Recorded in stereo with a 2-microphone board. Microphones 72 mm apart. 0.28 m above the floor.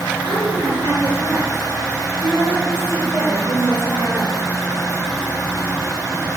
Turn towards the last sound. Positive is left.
turn(degrees=-75)  # may be behind; listen again after turning